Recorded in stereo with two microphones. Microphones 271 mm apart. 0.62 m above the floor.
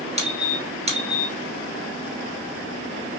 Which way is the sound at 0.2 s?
25° right (ahead or behind).